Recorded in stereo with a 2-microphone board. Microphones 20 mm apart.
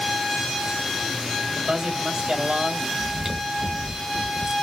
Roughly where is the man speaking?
Right.